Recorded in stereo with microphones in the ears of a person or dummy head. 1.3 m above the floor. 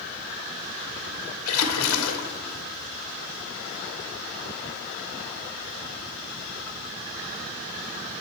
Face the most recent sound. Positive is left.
turn(degrees=80)